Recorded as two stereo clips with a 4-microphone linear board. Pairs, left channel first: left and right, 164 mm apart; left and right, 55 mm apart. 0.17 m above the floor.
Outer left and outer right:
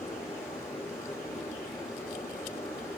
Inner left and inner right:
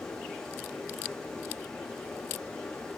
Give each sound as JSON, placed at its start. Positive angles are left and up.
{"t": 0.0, "sound": "running water", "side_deg": 20, "distance_m": 7.0}